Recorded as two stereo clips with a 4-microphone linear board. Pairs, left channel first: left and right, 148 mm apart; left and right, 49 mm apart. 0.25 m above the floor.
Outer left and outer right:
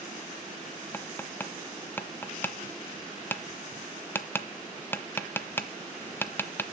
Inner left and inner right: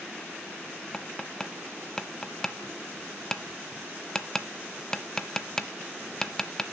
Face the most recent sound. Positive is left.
turn(degrees=15)  # may be behind; listen again after turning